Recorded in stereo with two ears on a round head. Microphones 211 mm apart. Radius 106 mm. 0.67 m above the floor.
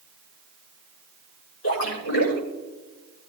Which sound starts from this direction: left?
A splash, at 1.6 s.